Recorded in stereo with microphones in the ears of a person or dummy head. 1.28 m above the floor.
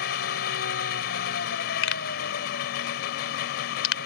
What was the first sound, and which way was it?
An engine running, 55° left (ahead or behind).